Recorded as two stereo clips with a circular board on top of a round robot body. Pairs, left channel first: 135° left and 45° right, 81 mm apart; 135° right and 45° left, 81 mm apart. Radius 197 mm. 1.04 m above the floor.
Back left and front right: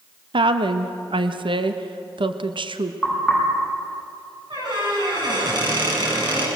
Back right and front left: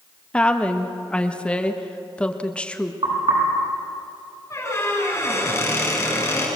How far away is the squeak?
About 9.5 m.